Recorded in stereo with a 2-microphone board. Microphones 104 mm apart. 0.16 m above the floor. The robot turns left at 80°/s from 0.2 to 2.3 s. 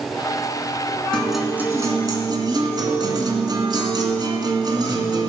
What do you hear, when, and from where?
1.1 s a guitar: 10° left, 2 m; by 5.3 s 80° right, 2 m